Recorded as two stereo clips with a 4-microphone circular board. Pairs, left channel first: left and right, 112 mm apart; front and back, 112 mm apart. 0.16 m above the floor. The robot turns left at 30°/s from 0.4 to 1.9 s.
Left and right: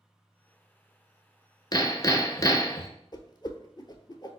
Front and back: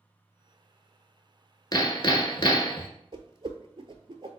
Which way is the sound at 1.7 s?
45° left.